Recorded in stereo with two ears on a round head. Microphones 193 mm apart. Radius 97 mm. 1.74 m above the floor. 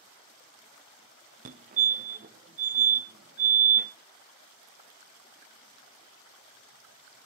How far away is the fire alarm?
About 0.7 m.